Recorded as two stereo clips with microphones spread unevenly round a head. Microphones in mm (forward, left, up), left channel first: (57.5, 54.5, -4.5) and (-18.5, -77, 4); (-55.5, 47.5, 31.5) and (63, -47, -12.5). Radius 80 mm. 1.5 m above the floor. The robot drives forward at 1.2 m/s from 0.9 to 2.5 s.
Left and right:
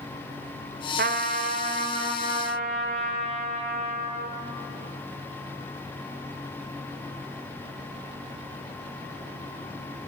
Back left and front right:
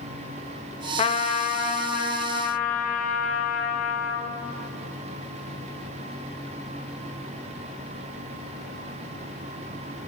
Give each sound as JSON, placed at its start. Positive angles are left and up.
{"t": 1.0, "sound": "a trumpet", "azimuth_deg": -160, "distance_m": 0.6}